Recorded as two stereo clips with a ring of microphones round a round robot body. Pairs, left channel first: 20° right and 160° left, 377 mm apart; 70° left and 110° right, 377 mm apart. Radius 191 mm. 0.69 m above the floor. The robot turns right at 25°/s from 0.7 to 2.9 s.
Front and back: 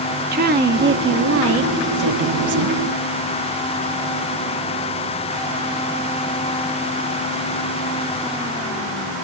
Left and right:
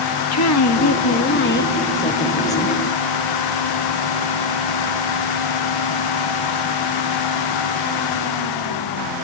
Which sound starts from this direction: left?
A woman speaking, at 0.3 s.